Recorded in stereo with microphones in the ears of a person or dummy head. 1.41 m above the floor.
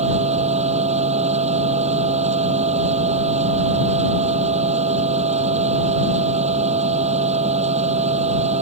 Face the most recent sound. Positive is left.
turn(degrees=-35)  # may be behind; listen again after turning